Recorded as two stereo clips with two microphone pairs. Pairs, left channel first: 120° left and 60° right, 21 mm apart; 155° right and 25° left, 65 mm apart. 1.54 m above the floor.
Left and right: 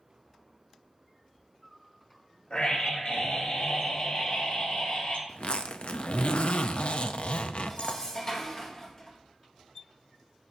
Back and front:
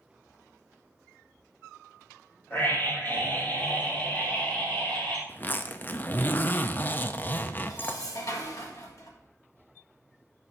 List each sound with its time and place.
2.5 s a scream: 150° left, 3 m; by 5.2 s 130° left, 4 m
5.3 s a zipper: 145° left, 0.5 m
7.7 s dishes clattering: straight behind, 1.3 m